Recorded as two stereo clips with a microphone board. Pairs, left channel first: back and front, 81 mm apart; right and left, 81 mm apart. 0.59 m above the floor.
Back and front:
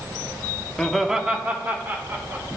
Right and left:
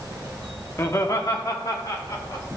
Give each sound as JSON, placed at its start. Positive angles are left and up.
{"t": 0.8, "sound": "laughter", "azimuth_deg": -110, "distance_m": 0.8}